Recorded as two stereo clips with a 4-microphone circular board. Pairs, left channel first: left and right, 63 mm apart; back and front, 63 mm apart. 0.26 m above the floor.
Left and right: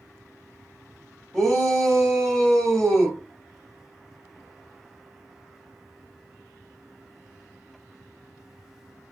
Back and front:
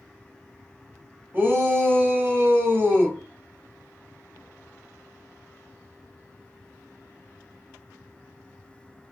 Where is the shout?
10° left, 1.9 m.